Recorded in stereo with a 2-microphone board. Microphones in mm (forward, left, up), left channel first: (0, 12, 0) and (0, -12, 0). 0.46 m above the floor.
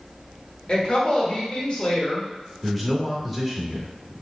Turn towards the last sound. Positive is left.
turn(degrees=0)  # may be behind; listen again after turning